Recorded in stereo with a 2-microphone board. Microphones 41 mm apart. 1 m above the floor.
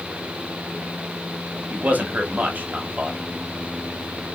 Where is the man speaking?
45° right (ahead or behind), 1.0 m.